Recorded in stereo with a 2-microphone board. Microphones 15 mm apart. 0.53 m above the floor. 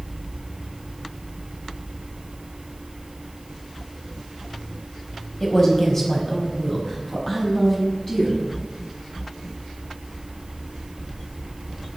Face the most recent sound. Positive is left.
turn(degrees=10)  # may be behind; listen again after turning